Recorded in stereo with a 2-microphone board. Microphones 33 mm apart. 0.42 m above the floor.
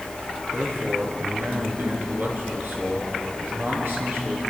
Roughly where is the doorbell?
No doorbell in this recording.